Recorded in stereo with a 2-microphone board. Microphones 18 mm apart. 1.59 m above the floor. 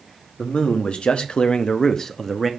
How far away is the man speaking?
About 1.2 m.